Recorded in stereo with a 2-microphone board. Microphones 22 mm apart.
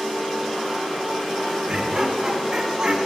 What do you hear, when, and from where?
1.7 s laughter: 30° right (ahead or behind), 4 m